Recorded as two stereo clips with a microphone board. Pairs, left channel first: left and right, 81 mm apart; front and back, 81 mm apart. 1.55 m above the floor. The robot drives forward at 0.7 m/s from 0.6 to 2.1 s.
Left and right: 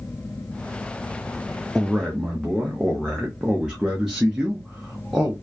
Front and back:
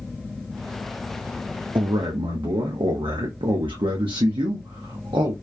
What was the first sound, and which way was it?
A man speaking, 170° right.